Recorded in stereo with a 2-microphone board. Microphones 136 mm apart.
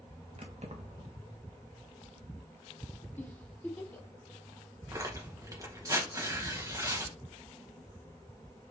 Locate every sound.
0.4 s keys jangling: 50° right (ahead or behind), 1.3 m
3.2 s a giggle: 15° left (ahead or behind), 1.3 m
4.9 s tearing paper: 25° right (ahead or behind), 2.0 m